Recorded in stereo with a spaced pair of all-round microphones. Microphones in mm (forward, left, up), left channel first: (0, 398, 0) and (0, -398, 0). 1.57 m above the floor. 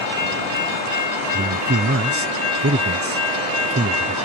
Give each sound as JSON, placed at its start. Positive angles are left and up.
{"t": 1.3, "sound": "a man speaking", "side_deg": -20}